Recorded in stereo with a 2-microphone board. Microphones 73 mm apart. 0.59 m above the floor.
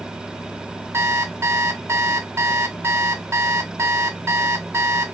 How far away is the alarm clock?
About 0.6 m.